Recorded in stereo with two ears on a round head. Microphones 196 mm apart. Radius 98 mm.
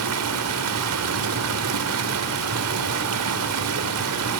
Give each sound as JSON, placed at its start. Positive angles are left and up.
{"t": 0.0, "sound": "running water", "side_deg": -75, "distance_m": 1.6}